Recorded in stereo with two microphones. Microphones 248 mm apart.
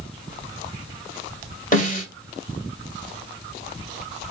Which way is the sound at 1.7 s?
35° left (ahead or behind).